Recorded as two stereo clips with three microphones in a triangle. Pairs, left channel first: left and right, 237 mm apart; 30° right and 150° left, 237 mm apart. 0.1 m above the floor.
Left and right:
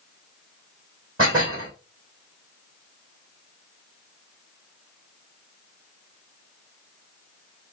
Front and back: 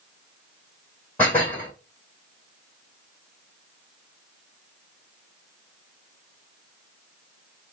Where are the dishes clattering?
115° right, 3.5 m.